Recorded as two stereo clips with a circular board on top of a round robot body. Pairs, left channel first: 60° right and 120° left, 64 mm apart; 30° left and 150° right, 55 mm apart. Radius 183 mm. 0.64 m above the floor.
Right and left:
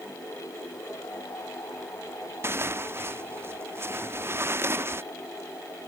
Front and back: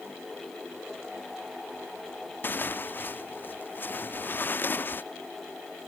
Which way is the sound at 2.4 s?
75° left.